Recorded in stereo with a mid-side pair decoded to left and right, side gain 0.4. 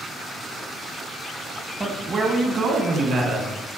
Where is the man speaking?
20° right, 0.6 m; by 3.5 s 70° right, 1.4 m.